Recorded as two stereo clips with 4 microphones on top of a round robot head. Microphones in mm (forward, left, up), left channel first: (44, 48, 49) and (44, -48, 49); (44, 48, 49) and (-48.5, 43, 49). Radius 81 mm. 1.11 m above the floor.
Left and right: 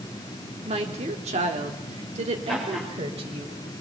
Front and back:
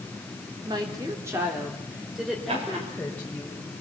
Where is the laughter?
175° left, 6 m.